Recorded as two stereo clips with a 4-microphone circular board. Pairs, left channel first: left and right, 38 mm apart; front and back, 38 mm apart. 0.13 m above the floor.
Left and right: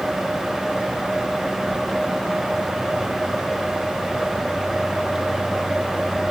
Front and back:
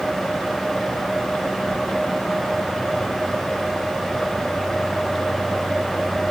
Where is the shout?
I don't hear a shout.